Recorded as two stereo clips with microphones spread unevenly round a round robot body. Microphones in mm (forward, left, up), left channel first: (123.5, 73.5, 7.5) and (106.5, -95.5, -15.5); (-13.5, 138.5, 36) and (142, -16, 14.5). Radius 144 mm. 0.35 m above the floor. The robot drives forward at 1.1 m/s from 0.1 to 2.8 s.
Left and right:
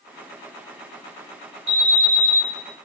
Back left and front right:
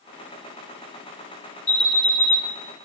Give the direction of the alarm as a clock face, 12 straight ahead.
5 o'clock.